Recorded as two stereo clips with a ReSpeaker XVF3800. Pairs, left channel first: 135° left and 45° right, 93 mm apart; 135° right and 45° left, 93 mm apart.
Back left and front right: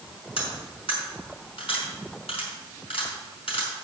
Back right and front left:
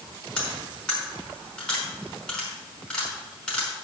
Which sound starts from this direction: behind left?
Cutlery clinking, at 0.4 s.